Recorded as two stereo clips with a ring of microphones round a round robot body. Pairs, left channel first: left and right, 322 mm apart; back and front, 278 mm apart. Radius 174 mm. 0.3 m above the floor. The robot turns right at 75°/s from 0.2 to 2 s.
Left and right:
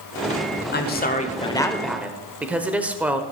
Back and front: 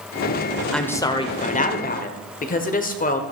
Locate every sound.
0.7 s a woman speaking: 95° left, 1.2 m; by 3.2 s 170° right, 1.2 m